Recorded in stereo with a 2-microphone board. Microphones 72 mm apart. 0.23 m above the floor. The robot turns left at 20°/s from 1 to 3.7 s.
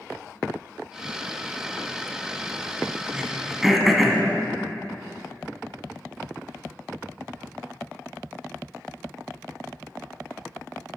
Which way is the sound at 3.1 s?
10° right (ahead or behind).